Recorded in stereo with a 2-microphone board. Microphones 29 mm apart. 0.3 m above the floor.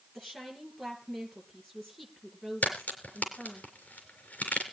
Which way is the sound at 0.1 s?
5° left (ahead or behind).